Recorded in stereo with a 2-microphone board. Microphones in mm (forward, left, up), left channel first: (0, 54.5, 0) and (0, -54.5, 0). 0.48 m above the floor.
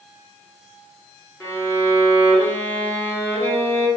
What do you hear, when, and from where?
1.4 s a violin: 20° left (ahead or behind), 1.0 m